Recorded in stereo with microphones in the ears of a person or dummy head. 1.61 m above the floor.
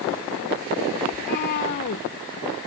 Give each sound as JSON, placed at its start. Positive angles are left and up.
{"t": 1.1, "sound": "a cat meowing", "side_deg": 45}